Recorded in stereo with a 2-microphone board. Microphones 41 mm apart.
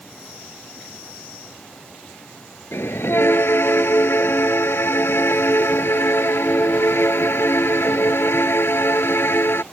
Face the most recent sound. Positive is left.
turn(degrees=75)  # may be behind; listen again after turning